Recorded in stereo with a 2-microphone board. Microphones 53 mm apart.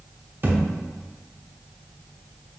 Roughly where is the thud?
Right.